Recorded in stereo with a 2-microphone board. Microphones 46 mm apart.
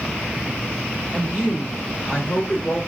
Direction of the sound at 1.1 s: 30° left (ahead or behind).